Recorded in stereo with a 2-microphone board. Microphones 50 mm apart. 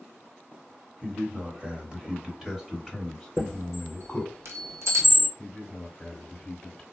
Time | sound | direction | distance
1.0 | a man speaking | 30° right (ahead or behind) | 1.4 m
3.4 | a chime | 65° right (ahead or behind) | 2.5 m
5.4 | a man speaking | 10° left (ahead or behind) | 1.3 m